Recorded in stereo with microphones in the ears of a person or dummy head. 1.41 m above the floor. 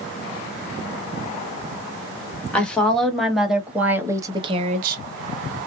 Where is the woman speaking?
10° left (ahead or behind), 1.6 m; by 5.0 s 60° right (ahead or behind), 0.6 m.